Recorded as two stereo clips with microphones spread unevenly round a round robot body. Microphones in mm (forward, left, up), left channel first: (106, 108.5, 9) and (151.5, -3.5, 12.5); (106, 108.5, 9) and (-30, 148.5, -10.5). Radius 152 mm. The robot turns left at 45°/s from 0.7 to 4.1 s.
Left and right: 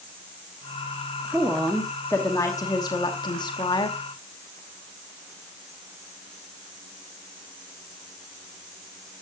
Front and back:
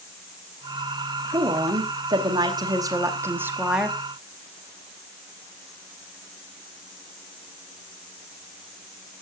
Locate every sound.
1.3 s a woman speaking: 155° right, 0.9 m; by 4.0 s 85° left, 0.9 m